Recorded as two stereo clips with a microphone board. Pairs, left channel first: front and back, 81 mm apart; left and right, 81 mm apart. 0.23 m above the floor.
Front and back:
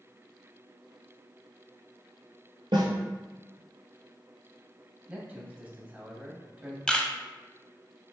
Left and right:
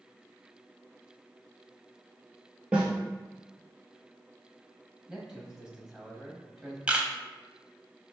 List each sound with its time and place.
2.7 s a snare drum: 165° right, 1.3 m
5.1 s a man speaking: 155° right, 1.1 m
6.9 s a camera shutter: 55° right, 0.6 m